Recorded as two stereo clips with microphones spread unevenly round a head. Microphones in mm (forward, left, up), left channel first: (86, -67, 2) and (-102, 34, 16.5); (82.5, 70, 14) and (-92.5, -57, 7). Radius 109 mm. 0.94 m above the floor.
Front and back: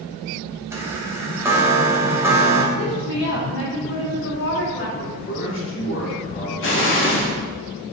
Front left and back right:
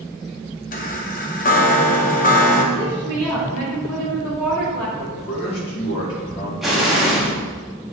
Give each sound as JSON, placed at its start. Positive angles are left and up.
{"t": 0.7, "sound": "a chime", "azimuth_deg": 75, "distance_m": 0.8}
{"t": 2.7, "sound": "a woman speaking", "azimuth_deg": -45, "distance_m": 2.5}
{"t": 5.0, "sound": "a man speaking", "azimuth_deg": 5, "distance_m": 2.5}
{"t": 6.6, "sound": "an explosion", "azimuth_deg": -55, "distance_m": 1.3}